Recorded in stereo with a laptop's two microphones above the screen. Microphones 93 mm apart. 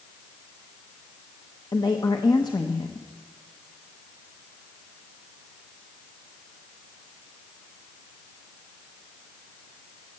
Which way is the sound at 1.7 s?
50° left (ahead or behind).